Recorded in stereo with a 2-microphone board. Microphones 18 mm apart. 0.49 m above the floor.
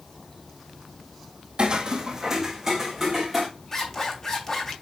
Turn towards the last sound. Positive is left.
turn(degrees=25)  # may be behind; listen again after turning